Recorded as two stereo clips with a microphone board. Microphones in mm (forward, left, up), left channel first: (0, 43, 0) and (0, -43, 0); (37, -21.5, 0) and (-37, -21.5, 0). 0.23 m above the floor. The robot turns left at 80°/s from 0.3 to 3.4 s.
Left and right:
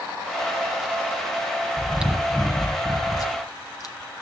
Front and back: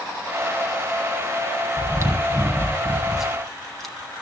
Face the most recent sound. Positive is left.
turn(degrees=85)